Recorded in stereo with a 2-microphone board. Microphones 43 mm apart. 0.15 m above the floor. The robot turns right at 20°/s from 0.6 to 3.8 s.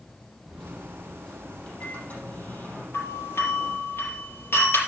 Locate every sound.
0.5 s a microwave: 10° left, 6 m; by 2.8 s 55° left, 6 m
2.9 s a doorbell: 70° left (ahead or behind), 5 m; by 4.8 s 65° left (ahead or behind), 5 m